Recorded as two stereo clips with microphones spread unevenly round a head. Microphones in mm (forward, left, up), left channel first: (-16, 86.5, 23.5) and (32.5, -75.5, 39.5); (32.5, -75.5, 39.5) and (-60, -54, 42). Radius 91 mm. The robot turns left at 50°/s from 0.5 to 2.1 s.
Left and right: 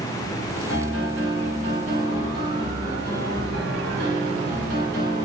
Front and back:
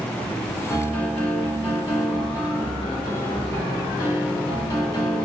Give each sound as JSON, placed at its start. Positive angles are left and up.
{"t": 0.7, "sound": "a piano", "azimuth_deg": 25, "distance_m": 2.0}